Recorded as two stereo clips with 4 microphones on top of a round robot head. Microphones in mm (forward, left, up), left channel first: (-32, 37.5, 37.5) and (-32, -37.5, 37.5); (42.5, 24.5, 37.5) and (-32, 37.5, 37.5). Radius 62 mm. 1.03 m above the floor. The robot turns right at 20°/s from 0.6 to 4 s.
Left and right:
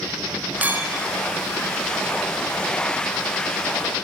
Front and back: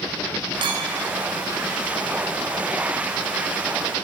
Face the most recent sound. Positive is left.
turn(degrees=-90)